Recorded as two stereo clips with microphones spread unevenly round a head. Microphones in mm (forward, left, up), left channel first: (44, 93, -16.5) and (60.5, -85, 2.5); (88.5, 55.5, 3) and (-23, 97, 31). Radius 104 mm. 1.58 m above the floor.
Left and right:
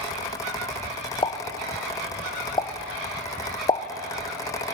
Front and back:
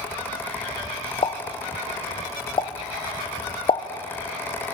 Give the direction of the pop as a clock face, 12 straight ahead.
11 o'clock.